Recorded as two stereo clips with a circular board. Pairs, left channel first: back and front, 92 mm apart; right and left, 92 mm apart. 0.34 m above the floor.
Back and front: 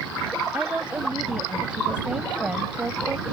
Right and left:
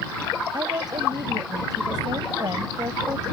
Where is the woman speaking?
75° left.